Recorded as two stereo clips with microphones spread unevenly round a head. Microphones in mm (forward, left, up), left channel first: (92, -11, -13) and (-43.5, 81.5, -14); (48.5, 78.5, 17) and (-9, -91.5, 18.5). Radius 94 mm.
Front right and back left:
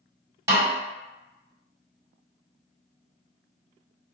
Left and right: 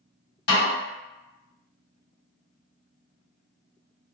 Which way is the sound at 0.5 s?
80° left.